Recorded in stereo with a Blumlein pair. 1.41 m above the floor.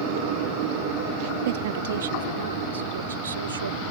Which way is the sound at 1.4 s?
55° right.